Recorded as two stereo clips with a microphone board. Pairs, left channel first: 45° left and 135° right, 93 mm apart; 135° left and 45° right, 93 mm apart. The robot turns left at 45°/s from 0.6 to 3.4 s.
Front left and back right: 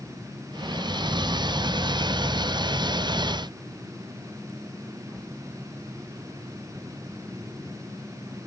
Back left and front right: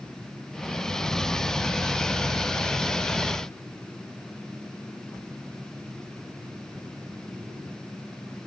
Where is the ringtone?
No ringtone in this recording.